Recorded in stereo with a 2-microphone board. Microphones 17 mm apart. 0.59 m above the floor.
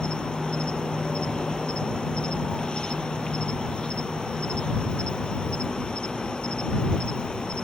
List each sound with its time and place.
0.0 s an insect: 65° left (ahead or behind)